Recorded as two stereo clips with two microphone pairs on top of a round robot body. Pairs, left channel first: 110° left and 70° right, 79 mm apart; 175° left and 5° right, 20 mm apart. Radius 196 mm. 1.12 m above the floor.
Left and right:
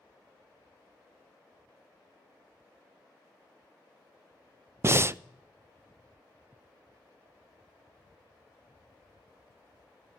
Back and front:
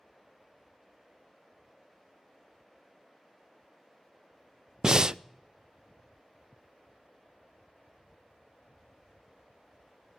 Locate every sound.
4.8 s breathing: 35° right, 0.5 m